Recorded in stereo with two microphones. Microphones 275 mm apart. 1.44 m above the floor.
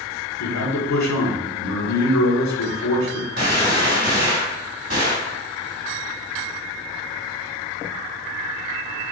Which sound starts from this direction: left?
A man speaking, at 0.4 s.